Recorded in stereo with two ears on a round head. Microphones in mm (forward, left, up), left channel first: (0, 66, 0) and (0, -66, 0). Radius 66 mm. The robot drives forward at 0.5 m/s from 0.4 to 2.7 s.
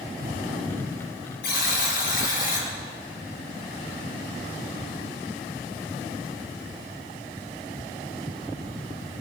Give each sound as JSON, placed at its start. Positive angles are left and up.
{"t": 1.4, "sound": "a buzzer", "side_deg": 65, "distance_m": 4.5}